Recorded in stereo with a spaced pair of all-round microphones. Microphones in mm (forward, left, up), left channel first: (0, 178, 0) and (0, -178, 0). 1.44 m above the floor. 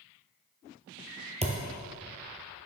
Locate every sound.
1.4 s a thud: 15° right (ahead or behind), 1.5 m